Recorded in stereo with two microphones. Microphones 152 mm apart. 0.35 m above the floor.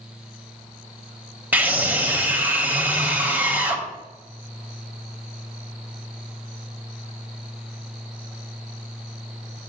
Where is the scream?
10° right (ahead or behind), 1.7 m.